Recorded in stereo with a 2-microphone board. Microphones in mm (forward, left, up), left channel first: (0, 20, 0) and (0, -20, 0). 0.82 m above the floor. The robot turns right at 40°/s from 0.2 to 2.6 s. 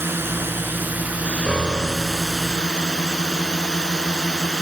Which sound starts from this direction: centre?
A piano, at 1.5 s.